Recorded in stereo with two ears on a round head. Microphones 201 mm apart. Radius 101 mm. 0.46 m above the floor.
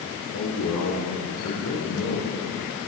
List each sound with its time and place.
0.3 s a man speaking: 80° left, 9.5 m